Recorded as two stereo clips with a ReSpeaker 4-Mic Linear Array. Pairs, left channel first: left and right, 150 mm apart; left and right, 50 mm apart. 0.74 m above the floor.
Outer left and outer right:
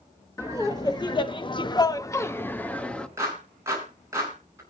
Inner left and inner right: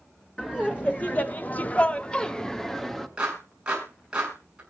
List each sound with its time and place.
0.4 s laughter: 25° left (ahead or behind), 1.2 m; by 3.1 s 5° left (ahead or behind), 1.4 m
3.2 s a clap: 20° right (ahead or behind), 6.5 m